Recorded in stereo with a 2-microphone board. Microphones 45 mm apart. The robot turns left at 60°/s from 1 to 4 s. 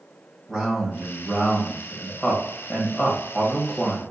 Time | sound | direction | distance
0.5 | a man speaking | centre (ahead or behind) | 1.0 m